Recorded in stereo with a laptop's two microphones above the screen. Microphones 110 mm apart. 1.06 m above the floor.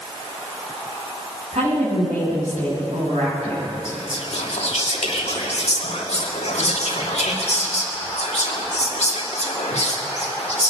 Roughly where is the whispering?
Left.